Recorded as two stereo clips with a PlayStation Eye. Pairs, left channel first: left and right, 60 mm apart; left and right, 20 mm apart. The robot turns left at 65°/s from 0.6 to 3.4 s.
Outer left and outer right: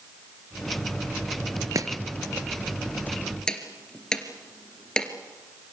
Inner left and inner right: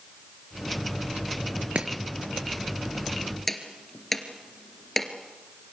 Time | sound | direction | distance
1.8 | chopping | 60° right (ahead or behind) | 2.5 m